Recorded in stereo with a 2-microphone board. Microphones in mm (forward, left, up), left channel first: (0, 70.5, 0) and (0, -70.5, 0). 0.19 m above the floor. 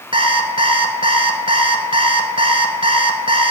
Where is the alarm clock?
40° right (ahead or behind), 1.1 m.